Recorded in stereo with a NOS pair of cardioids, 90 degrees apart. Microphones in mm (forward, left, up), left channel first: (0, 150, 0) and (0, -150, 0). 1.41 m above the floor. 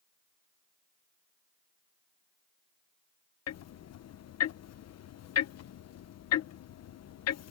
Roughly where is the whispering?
No whispering in this recording.